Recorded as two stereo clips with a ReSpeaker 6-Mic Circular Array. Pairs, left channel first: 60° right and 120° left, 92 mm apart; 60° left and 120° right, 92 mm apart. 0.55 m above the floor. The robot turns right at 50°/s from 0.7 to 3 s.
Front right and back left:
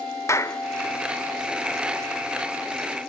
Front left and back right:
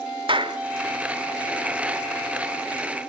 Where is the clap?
115° right, 1.2 m.